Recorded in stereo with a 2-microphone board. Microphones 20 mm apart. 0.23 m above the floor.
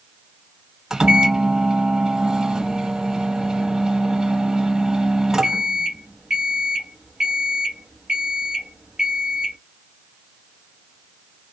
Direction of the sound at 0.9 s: 30° right (ahead or behind).